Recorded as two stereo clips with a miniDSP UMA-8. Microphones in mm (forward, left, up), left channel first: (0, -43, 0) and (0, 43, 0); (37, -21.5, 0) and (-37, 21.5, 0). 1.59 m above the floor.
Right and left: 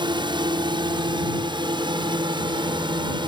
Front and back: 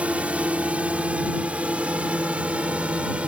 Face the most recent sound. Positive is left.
turn(degrees=75)